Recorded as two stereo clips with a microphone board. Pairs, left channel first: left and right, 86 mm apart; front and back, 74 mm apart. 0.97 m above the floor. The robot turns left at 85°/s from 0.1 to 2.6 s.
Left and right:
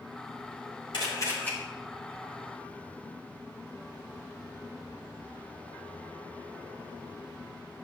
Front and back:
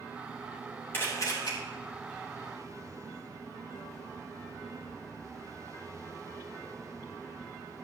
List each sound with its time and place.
0.9 s a camera shutter: 65° left, 3.5 m; by 1.5 s 15° left, 3.5 m